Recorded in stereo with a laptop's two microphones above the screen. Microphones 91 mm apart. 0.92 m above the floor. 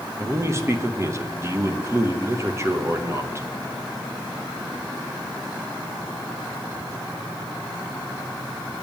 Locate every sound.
0.2 s a man speaking: 30° right (ahead or behind), 0.7 m